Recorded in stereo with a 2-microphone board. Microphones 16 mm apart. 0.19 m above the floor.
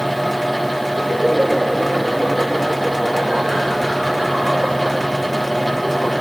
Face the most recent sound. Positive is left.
turn(degrees=-55)  # may be behind; listen again after turning